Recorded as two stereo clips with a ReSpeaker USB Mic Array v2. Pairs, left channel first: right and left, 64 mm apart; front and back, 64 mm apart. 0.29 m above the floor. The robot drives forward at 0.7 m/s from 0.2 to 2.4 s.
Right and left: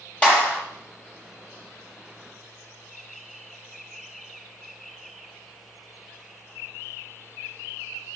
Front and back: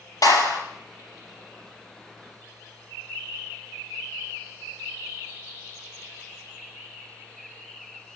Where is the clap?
20° right, 6 m.